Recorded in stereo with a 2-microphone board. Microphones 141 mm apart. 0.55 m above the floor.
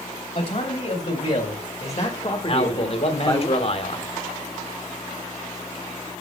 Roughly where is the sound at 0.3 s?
Left.